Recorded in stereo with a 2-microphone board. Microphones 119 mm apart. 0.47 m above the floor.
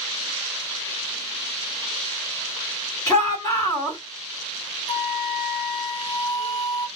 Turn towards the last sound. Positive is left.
turn(degrees=60)  # may be behind; listen again after turning